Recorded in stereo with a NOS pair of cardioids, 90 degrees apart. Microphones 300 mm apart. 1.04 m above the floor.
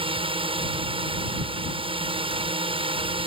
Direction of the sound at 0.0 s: 20° right.